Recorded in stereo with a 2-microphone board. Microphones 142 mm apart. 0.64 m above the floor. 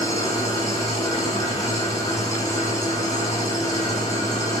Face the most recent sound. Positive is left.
turn(degrees=25)  # may be behind; listen again after turning